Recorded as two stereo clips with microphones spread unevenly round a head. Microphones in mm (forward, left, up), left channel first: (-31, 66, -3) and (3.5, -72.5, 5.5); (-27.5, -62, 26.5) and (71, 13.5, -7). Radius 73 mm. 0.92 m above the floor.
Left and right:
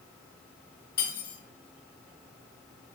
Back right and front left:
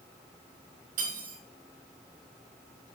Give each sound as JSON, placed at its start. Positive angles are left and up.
{"t": 1.0, "sound": "cutlery clinking", "azimuth_deg": 75, "distance_m": 3.5}